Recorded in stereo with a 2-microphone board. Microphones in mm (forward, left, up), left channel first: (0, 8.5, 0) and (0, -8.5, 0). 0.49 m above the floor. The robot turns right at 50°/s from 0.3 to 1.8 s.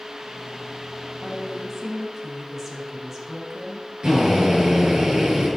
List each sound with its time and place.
1.2 s a woman speaking: 55° right (ahead or behind), 4 m; by 3.9 s 25° right (ahead or behind), 4 m
4.0 s a drill: 60° right (ahead or behind), 8 m